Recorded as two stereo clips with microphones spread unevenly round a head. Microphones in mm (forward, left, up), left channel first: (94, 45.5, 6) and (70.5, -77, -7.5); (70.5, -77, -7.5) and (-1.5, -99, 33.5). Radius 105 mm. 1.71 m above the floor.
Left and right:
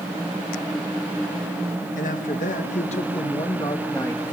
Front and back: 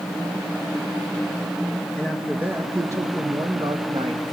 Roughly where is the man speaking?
Left.